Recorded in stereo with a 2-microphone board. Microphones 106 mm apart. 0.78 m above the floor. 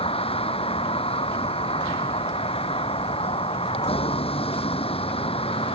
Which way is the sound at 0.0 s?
65° left (ahead or behind).